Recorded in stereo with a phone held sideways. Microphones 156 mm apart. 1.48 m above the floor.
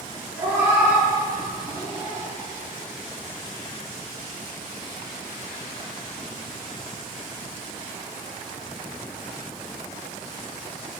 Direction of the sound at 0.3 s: 15° right (ahead or behind).